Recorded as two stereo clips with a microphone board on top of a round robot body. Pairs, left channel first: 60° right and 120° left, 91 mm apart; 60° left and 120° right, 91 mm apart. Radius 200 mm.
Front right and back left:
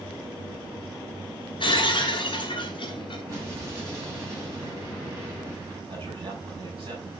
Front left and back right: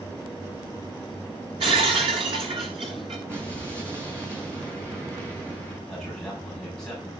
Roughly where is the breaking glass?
Right.